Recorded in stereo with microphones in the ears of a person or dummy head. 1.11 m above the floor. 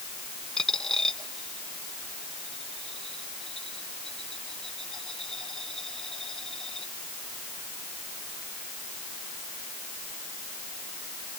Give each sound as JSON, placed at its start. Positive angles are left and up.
{"t": 0.6, "sound": "a dropped coin", "side_deg": 5}